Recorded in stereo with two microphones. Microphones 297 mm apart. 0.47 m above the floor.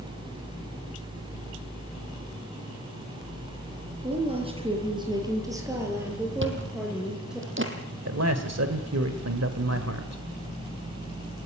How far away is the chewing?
About 3.5 m.